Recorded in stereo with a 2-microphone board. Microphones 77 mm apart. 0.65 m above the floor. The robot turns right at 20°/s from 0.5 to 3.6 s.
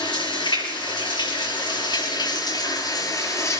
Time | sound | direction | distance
0.0 | running water | 80° left | 6 m